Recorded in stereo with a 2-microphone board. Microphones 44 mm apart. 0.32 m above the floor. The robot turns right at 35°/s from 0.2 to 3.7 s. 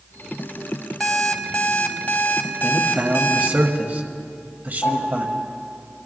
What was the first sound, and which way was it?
An alarm clock, 5° left.